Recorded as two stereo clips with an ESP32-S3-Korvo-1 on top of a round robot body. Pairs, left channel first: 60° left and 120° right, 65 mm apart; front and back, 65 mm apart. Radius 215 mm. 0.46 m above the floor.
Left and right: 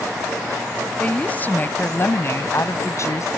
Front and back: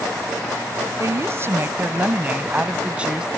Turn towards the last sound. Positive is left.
turn(degrees=100)